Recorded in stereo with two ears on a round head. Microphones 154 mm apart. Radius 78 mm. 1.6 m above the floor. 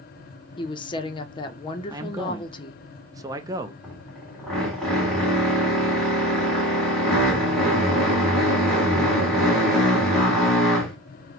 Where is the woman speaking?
25° left (ahead or behind), 0.6 m.